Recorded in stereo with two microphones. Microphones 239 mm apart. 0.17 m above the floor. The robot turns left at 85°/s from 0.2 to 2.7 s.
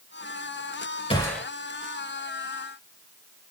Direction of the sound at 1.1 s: 25° left (ahead or behind).